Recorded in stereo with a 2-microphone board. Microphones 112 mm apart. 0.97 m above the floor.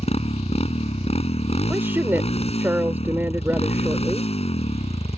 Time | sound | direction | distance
0.0 | a motorcycle | 65° left (ahead or behind) | ?
1.7 | a woman speaking | 20° right (ahead or behind) | ?